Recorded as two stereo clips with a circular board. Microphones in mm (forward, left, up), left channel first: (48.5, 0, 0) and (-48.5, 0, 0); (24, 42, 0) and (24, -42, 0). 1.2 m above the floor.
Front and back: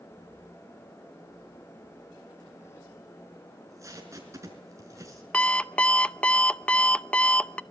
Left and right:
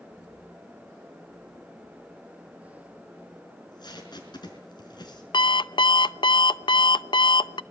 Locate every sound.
3.5 s tape being pulled: 125° left, 5 m
5.3 s an alarm clock: 75° left, 0.5 m